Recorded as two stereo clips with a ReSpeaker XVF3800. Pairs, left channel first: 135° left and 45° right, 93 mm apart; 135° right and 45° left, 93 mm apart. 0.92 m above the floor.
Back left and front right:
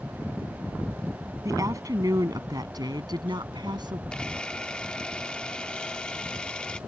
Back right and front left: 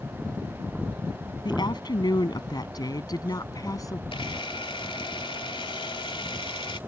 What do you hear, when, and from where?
1.4 s a woman speaking: 100° right; by 4.0 s 85° right
4.1 s a camera shutter: 145° right